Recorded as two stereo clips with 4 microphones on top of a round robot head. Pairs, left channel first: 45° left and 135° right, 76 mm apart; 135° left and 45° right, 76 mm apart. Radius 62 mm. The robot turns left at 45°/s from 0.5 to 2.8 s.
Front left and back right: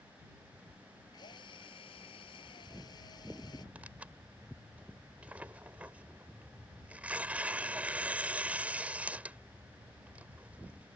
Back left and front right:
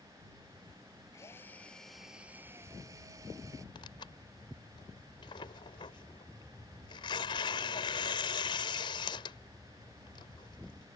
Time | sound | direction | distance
1.1 | a drill | 80° left | ?
3.8 | tearing paper | 150° left | ?